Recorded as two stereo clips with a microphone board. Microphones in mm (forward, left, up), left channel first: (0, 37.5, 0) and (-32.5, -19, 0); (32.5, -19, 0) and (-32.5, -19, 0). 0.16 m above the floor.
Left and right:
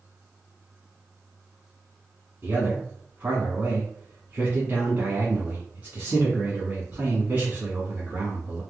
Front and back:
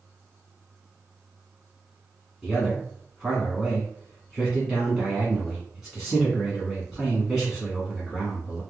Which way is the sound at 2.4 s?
100° right.